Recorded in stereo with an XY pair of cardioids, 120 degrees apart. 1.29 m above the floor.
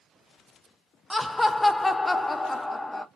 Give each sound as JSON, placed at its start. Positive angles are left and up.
{"t": 1.1, "sound": "laughter", "azimuth_deg": 10, "distance_m": 0.8}